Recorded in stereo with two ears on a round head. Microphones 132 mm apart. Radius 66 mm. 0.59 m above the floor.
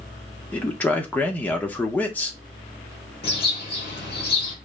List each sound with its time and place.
0.5 s a man speaking: 10° left (ahead or behind), 0.8 m
3.2 s a bird: 35° left (ahead or behind), 2.5 m